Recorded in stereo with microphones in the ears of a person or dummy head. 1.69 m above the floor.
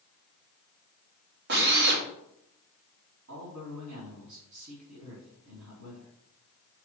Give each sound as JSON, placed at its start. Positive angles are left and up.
{"t": 1.5, "sound": "a drill", "side_deg": -55, "distance_m": 2.5}
{"t": 3.3, "sound": "a man speaking", "side_deg": -80, "distance_m": 4.0}